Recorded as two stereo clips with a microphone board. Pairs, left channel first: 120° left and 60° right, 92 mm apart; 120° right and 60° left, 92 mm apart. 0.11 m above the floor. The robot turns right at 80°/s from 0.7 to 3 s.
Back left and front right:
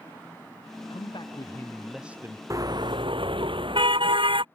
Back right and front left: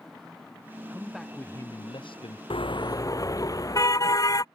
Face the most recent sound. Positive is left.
turn(degrees=-70)